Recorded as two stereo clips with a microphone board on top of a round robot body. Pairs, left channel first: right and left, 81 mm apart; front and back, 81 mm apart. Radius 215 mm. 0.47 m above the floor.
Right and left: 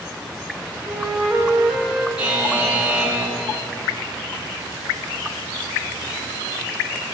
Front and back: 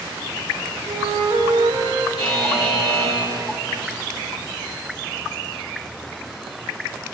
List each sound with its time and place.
0.9 s a flute: 170° left, 1.0 m
2.2 s a buzzer: 15° left, 2 m